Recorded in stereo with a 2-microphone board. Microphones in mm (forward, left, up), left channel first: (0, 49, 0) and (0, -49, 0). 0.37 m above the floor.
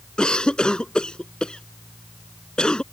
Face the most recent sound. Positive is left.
turn(degrees=10)  # may be behind; listen again after turning